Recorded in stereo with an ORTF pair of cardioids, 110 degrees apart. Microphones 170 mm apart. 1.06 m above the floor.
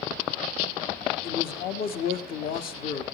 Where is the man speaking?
60° left, 1.8 m.